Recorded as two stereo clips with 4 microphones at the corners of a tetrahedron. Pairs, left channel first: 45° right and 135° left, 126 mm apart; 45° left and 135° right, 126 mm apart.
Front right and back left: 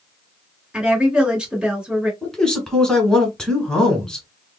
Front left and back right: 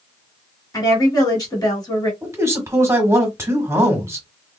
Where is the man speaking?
120° right, 1.2 m.